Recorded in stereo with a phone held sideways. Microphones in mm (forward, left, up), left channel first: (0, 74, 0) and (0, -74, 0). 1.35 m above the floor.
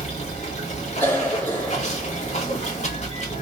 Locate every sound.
0.0 s running water: 50° left (ahead or behind), 1.7 m
1.0 s a cough: 20° left (ahead or behind), 2.5 m